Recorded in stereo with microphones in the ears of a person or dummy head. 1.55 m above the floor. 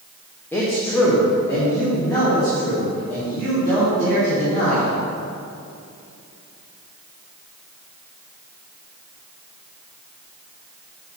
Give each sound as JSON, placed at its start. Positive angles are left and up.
{"t": 0.5, "sound": "a man speaking", "side_deg": 10, "distance_m": 1.1}